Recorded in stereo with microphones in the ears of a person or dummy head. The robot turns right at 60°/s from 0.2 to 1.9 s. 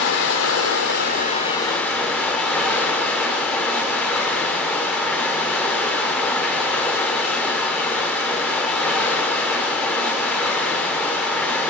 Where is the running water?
75° left, 1.6 m; by 11.7 s 175° left, 1.6 m.